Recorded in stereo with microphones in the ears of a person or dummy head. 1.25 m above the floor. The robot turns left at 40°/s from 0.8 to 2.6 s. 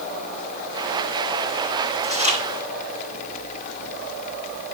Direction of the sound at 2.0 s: 20° left (ahead or behind).